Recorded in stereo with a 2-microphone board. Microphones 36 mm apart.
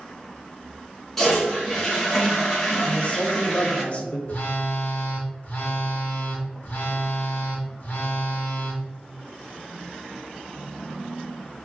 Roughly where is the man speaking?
Left.